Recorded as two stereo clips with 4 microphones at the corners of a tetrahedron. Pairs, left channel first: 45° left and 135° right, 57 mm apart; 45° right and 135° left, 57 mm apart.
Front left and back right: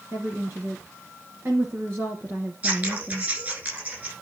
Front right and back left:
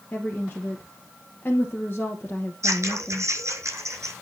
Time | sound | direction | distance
0.1 | a woman speaking | 90° right | 2 m
2.6 | scissors | 165° left | 6 m